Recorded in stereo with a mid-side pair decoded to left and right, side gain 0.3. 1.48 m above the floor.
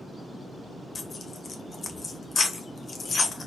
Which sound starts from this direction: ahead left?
Tearing paper, at 0.9 s.